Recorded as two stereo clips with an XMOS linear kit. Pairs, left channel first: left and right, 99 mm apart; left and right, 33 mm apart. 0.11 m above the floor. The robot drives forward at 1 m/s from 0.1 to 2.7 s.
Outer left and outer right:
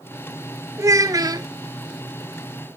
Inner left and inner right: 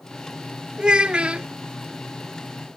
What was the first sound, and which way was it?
A child speaking, 30° right (ahead or behind).